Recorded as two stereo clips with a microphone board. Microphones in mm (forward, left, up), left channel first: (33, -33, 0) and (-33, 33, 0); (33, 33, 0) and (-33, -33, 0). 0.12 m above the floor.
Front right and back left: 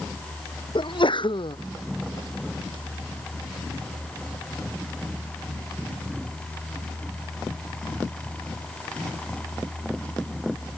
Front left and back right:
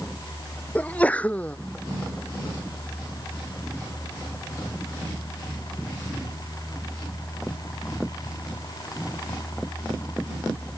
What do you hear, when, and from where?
0.8 s a sneeze: 30° right